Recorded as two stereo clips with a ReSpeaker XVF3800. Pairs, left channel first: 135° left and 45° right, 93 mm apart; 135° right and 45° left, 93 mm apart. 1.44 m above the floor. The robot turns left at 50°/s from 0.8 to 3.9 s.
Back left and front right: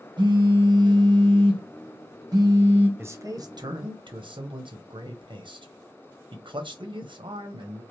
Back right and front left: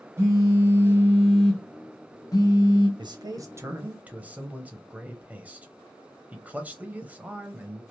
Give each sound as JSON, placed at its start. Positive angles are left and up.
{"t": 0.2, "sound": "a phone buzzing", "azimuth_deg": -15, "distance_m": 0.9}
{"t": 3.0, "sound": "a man speaking", "azimuth_deg": 20, "distance_m": 0.7}